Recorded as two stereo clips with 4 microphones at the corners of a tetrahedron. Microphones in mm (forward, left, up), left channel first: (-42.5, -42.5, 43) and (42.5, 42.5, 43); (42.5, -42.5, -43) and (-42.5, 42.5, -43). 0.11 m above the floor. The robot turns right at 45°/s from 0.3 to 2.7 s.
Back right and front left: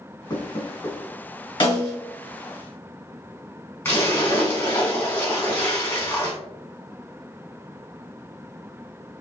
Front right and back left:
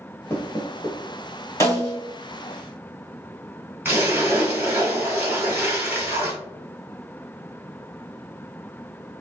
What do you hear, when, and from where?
0.3 s knocking: 105° right, 1.3 m; by 1.0 s 75° right, 1.3 m
1.6 s a snare drum: 100° right, 1.7 m; by 2.0 s 85° right, 1.7 m
3.9 s a splash: 175° right, 1.3 m